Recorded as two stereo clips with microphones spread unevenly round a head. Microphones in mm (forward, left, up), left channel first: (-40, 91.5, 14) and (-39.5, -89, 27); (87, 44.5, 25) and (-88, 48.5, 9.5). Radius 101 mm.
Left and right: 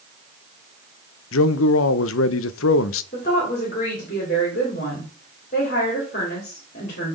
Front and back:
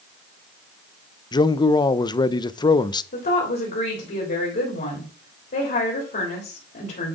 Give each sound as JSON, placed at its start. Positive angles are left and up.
{"t": 1.3, "sound": "a man speaking", "azimuth_deg": 65, "distance_m": 0.5}
{"t": 3.1, "sound": "a woman speaking", "azimuth_deg": 35, "distance_m": 3.0}